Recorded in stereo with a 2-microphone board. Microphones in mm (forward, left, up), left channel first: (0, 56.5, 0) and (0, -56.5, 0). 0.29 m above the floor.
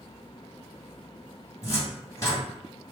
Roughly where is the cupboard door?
Left.